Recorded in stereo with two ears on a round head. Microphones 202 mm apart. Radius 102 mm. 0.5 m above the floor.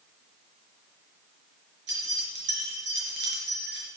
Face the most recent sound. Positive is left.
turn(degrees=-55)  # may be behind; listen again after turning